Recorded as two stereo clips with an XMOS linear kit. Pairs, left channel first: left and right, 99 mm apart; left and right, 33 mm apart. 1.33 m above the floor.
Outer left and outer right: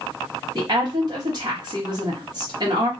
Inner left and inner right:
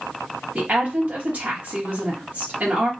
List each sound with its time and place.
0.6 s a woman speaking: 45° right (ahead or behind), 1.7 m